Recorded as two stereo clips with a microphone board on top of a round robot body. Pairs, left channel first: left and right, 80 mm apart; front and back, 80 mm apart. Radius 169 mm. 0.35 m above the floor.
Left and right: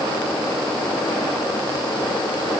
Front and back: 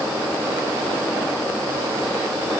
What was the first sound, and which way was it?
Only background noise.